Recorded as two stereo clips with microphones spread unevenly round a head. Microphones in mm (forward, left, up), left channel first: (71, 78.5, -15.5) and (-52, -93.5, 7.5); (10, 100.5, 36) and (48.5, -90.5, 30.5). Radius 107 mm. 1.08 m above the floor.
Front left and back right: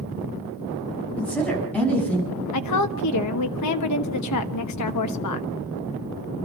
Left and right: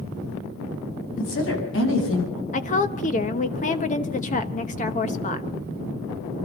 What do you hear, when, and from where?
1.2 s a woman speaking: 140° left, 7.5 m
2.5 s a woman speaking: 45° left, 1.0 m